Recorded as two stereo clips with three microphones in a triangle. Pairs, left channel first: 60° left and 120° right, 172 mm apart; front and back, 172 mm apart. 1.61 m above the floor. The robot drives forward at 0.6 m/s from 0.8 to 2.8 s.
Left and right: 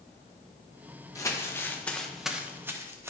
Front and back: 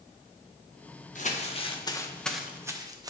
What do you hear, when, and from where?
1.1 s crumpling: 5° right, 1.0 m; by 3.1 s 165° right, 0.7 m